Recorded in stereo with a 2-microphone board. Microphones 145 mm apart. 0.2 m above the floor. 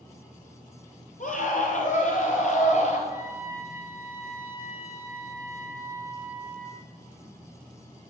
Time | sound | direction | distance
1.2 | a scream | 55° left (ahead or behind) | 4.5 m
3.1 | a trumpet | 20° right (ahead or behind) | 4 m